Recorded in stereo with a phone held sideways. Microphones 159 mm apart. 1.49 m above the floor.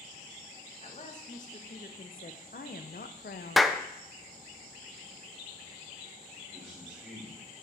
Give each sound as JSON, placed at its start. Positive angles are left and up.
{"t": 0.8, "sound": "a woman speaking", "side_deg": 50, "distance_m": 1.8}
{"t": 3.6, "sound": "a clap", "side_deg": 0, "distance_m": 0.5}
{"t": 6.5, "sound": "a man speaking", "side_deg": -10, "distance_m": 5.0}